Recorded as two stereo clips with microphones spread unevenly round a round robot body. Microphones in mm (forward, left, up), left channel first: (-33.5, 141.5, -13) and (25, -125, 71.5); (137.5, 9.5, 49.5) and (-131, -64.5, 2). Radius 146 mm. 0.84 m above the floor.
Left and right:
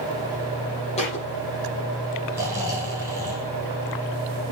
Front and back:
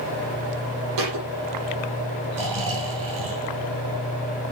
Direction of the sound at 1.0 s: 175° left.